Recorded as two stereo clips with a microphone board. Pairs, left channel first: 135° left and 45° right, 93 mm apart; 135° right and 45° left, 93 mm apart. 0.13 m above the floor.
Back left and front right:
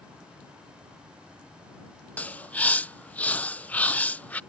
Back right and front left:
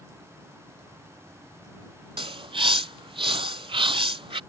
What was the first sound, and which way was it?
A bird, 60° left.